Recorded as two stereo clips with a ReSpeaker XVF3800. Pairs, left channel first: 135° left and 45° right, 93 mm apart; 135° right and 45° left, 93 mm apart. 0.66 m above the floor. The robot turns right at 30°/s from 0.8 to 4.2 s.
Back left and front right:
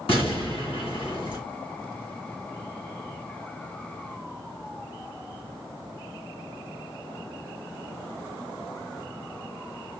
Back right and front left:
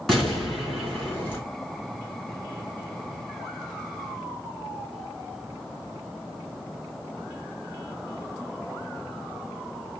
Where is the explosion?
135° left, 3.5 m; by 1.4 s 155° left, 3.5 m.